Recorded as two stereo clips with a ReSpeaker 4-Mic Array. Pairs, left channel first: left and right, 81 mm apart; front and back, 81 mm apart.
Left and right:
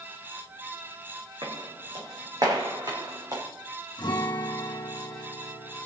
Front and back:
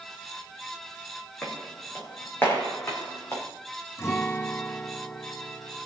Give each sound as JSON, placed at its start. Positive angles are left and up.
{"t": 1.4, "sound": "footsteps", "azimuth_deg": -70, "distance_m": 4.0}
{"t": 4.0, "sound": "a guitar", "azimuth_deg": 60, "distance_m": 1.7}